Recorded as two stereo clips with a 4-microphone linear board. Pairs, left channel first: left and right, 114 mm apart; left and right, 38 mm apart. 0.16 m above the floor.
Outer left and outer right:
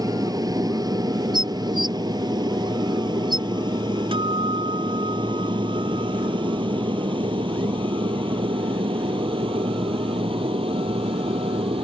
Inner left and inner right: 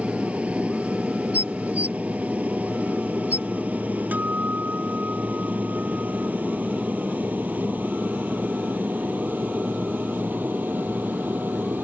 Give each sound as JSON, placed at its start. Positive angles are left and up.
{"t": 0.0, "sound": "an aircraft", "side_deg": -35}
{"t": 1.3, "sound": "dishes clattering", "side_deg": -40}
{"t": 4.1, "sound": "a guitar", "side_deg": -50}